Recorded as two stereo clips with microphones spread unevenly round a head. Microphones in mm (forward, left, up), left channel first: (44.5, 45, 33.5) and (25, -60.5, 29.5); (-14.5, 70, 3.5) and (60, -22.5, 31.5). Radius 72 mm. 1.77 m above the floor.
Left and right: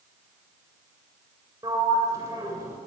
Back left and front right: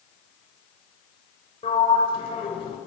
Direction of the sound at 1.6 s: 170° right.